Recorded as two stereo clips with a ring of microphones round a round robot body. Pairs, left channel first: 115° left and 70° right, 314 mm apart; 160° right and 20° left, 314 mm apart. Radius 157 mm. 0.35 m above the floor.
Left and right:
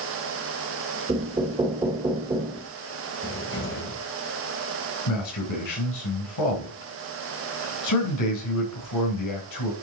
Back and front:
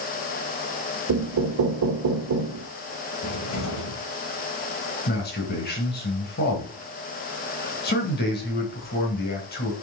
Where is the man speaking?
145° left, 3.5 m.